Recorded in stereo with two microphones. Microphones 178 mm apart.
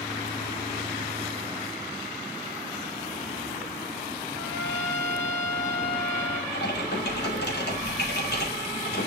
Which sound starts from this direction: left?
Typing on a keyboard, at 6.5 s.